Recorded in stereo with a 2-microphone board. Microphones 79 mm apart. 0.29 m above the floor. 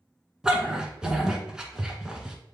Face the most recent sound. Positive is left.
turn(degrees=-10)  # may be behind; listen again after turning